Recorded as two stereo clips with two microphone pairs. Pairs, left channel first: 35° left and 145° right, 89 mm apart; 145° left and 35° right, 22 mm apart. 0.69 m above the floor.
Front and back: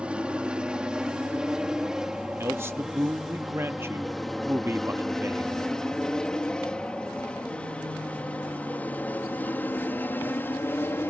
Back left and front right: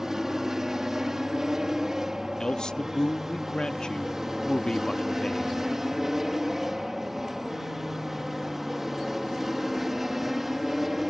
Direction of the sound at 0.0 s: 80° right.